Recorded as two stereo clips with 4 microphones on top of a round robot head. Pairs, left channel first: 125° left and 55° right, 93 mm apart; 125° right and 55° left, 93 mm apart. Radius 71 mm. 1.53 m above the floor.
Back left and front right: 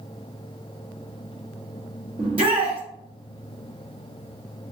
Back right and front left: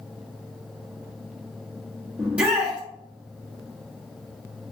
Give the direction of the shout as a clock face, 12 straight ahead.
1 o'clock.